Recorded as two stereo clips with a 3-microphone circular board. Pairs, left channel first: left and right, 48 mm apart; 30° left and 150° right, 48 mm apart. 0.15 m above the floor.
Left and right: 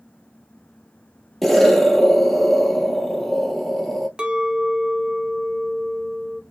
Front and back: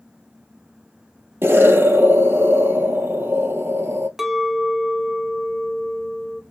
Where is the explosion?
Straight behind, 0.6 m.